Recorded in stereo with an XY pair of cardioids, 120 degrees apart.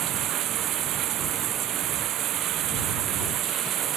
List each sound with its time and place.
0.0 s running water: 65° right